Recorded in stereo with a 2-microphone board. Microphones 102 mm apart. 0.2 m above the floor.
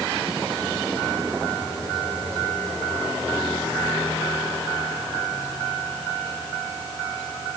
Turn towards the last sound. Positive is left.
No sound to turn to.